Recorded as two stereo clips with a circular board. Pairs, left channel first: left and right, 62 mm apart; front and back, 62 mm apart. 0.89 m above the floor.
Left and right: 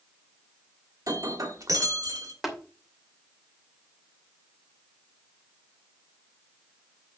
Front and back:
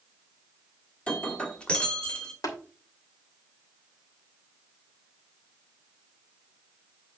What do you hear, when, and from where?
1.1 s breaking glass: 70° right, 1.7 m
2.4 s tapping: 5° right, 2.5 m